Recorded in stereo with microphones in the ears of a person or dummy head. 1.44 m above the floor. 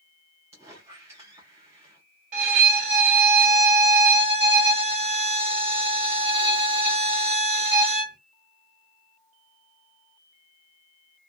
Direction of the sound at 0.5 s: 20° right (ahead or behind).